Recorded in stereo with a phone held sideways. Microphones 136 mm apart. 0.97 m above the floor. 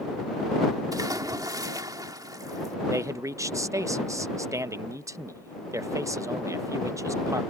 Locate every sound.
0.9 s a splash: 30° right (ahead or behind)
2.9 s a man speaking: 25° right (ahead or behind)